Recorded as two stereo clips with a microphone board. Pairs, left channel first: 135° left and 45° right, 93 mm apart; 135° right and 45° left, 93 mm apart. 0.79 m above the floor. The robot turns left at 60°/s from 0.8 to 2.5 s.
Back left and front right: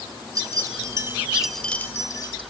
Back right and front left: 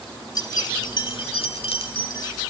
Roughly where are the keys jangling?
Right.